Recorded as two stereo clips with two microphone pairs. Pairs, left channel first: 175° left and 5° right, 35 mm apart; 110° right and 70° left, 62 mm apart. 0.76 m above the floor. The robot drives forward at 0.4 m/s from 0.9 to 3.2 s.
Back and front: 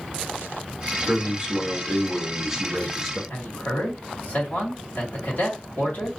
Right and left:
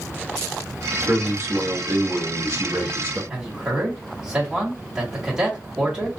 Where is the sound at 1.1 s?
35° left, 1.4 m; by 3.2 s 80° left, 1.1 m.